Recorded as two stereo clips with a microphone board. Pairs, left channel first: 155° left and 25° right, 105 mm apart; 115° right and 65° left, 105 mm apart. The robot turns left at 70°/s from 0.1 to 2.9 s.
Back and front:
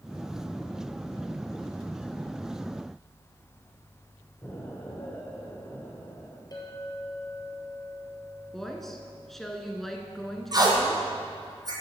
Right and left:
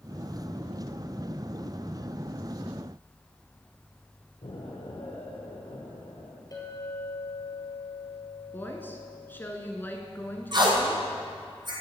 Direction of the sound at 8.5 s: 120° right.